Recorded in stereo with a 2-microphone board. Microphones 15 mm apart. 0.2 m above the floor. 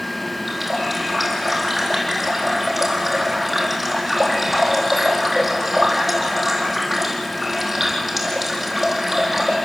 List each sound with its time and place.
0.5 s a running tap: 20° right (ahead or behind), 4.5 m